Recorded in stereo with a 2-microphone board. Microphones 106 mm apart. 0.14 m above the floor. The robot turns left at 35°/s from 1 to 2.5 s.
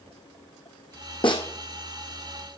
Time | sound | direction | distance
1.2 | a snare drum | 50° left (ahead or behind) | 1.5 m